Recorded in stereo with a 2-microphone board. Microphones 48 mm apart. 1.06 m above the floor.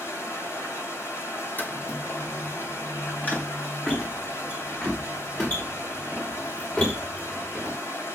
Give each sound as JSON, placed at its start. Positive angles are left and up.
{"t": 0.0, "sound": "running water", "side_deg": 75, "distance_m": 3.5}
{"t": 1.6, "sound": "footsteps", "side_deg": 45, "distance_m": 1.9}